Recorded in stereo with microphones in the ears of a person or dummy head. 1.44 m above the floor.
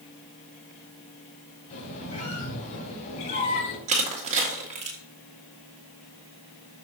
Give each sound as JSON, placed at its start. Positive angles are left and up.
{"t": 1.7, "sound": "a squeak", "side_deg": 40, "distance_m": 3.0}
{"t": 3.9, "sound": "crushing", "side_deg": -40, "distance_m": 1.8}